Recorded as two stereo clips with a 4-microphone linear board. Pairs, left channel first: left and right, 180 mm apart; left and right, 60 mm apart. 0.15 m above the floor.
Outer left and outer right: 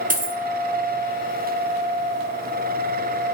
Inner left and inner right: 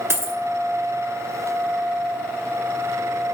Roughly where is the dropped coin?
Right.